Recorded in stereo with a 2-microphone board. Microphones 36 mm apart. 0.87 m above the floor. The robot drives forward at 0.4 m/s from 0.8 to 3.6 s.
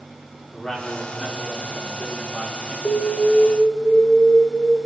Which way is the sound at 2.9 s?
55° left (ahead or behind).